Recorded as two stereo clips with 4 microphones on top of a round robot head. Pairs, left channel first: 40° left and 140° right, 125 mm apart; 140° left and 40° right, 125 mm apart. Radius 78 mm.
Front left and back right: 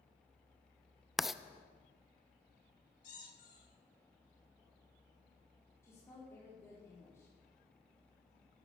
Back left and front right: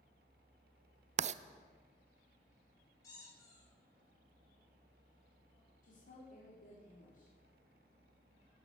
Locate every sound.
1.2 s writing: 50° right, 0.5 m
3.0 s a squeak: 75° left, 8.5 m
5.8 s a woman speaking: 115° left, 4 m